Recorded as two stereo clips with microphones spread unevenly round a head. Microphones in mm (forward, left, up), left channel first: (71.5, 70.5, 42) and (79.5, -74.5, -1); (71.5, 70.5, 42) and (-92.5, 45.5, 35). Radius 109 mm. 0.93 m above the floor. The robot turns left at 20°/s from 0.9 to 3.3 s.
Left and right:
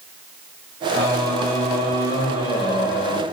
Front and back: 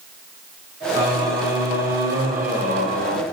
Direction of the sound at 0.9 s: 165° right.